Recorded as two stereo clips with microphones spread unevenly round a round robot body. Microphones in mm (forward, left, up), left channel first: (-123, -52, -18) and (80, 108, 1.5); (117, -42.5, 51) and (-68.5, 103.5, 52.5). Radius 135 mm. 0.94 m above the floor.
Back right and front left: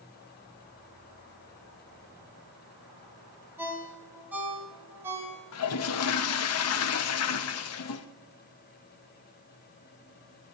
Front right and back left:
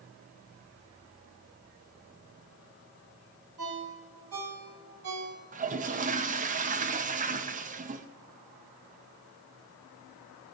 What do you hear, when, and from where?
3.6 s a ringtone: 120° left, 3 m
5.5 s a toilet flushing: 160° right, 0.7 m